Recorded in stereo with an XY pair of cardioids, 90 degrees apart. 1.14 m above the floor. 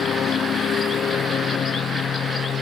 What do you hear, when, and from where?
0.0 s a lawn mower: 65° left